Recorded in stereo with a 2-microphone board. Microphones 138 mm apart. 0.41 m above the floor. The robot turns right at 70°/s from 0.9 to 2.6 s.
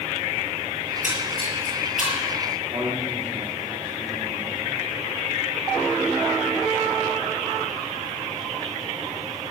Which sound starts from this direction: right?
A man speaking, at 2.7 s.